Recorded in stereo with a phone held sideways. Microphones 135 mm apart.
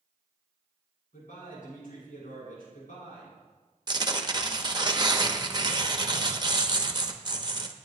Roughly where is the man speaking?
Left.